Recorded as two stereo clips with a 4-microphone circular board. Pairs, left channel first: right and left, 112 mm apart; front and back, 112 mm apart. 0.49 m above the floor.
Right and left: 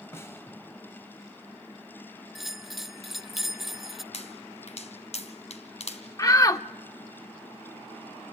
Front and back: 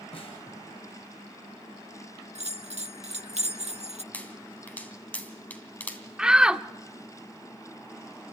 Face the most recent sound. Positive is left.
turn(degrees=-105)